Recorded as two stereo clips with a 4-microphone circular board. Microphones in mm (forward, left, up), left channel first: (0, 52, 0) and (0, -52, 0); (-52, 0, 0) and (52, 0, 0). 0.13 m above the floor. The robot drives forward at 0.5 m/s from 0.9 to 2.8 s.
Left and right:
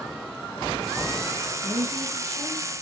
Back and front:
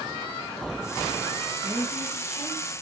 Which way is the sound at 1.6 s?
65° right.